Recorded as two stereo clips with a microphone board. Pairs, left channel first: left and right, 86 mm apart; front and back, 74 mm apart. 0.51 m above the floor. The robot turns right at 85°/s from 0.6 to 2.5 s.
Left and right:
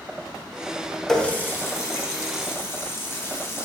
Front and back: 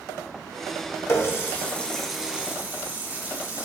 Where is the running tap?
10° left, 0.6 m; by 3.6 s 130° left, 0.6 m.